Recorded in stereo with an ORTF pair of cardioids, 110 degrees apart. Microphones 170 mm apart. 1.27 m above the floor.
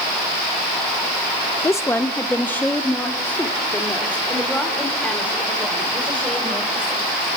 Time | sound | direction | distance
1.6 | a woman speaking | 15° left | 1.0 m